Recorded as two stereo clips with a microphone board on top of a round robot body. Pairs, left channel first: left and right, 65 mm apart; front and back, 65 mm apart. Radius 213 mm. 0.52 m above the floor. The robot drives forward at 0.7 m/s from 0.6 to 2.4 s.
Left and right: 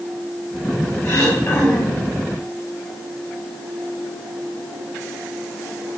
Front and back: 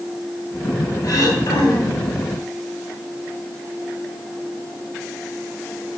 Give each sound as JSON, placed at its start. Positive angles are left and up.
{"t": 1.0, "sound": "throat clearing", "azimuth_deg": 40, "distance_m": 3.5}